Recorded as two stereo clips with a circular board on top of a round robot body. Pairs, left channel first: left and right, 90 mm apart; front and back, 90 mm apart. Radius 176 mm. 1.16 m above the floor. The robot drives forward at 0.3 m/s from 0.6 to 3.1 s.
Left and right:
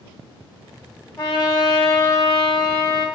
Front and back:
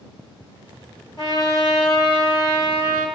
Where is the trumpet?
30° left, 0.9 m; by 3.1 s 155° left, 0.9 m.